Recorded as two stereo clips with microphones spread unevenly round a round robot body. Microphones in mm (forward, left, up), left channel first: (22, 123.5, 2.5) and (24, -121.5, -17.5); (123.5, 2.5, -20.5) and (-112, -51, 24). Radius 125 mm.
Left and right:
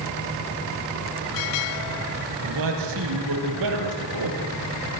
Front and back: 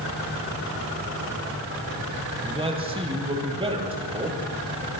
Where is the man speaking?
95° right, 8 m.